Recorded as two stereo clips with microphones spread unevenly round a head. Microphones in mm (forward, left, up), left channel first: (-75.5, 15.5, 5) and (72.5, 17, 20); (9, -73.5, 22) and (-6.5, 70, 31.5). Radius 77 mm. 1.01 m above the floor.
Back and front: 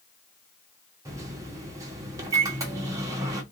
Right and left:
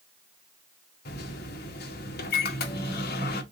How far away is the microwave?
About 1.4 m.